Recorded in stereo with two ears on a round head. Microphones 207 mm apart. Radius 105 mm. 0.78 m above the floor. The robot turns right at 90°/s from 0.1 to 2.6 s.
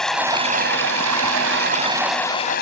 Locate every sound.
0.0 s running water: 175° left; by 2.6 s 40° left